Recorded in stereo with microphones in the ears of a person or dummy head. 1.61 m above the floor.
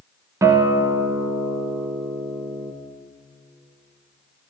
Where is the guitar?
15° right (ahead or behind), 0.9 m.